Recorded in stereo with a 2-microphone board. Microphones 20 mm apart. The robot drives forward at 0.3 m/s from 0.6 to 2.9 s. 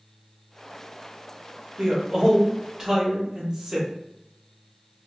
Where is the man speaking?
40° right (ahead or behind), 1.0 m; by 3.9 s 30° right (ahead or behind), 1.2 m.